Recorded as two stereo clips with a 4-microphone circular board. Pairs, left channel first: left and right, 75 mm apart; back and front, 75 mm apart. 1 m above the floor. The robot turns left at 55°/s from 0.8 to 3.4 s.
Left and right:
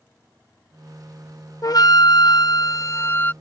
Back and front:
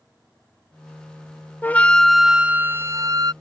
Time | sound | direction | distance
1.6 | a flute | 120° left | ?